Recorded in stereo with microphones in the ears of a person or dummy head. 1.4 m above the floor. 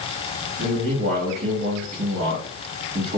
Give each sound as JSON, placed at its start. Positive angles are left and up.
{"t": 0.6, "sound": "a man speaking", "side_deg": -55, "distance_m": 1.3}